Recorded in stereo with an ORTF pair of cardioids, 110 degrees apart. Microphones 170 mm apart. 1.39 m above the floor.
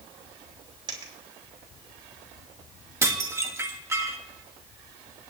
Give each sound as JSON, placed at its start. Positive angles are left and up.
{"t": 0.9, "sound": "a dropped coin", "azimuth_deg": -25, "distance_m": 3.0}
{"t": 3.0, "sound": "dishes clattering", "azimuth_deg": -15, "distance_m": 1.5}